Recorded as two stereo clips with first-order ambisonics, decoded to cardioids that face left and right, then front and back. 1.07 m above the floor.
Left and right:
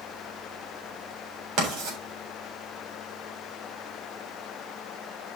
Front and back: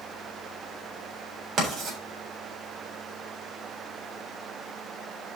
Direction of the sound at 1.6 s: 125° right.